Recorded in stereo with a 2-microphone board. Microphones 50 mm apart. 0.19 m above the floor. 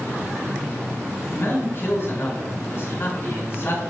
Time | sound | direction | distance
1.3 | a man speaking | 50° left (ahead or behind) | 2.5 m